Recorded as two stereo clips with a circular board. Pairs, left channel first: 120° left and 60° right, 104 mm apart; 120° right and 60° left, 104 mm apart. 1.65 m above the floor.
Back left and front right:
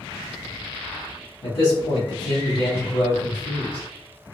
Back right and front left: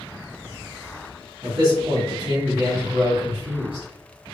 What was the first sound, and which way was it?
A man speaking, 90° left.